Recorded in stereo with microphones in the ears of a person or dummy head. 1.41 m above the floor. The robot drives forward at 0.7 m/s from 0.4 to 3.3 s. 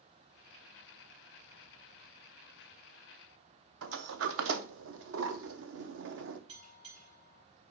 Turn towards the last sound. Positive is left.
turn(degrees=-65)  # may be behind; listen again after turning